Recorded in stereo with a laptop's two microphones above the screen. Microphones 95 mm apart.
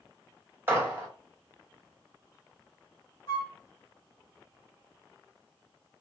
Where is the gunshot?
20° right (ahead or behind), 1.5 m.